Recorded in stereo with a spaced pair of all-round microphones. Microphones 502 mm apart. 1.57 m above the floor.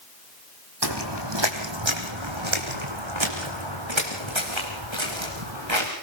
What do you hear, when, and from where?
0.8 s footsteps: 50° right (ahead or behind), 2.5 m; by 5.9 s 65° right (ahead or behind), 6.5 m